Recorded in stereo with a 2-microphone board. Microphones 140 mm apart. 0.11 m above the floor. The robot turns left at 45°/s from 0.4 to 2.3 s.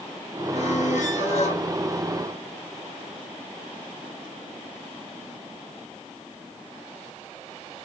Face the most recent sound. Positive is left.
turn(degrees=30)